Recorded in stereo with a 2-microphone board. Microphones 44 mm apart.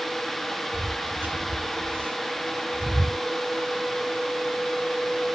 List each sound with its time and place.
0.7 s footsteps: 45° right (ahead or behind), 2 m; by 3.2 s 55° right (ahead or behind), 1.0 m